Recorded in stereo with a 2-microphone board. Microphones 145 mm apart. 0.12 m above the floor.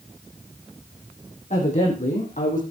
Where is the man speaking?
55° left (ahead or behind), 7 m; by 2.6 s 65° left (ahead or behind), 6.5 m.